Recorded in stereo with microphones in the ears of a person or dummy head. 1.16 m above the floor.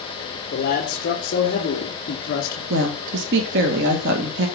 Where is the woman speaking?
60° right (ahead or behind), 1.4 m.